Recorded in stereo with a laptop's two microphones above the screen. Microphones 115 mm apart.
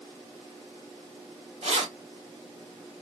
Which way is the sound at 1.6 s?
75° right (ahead or behind).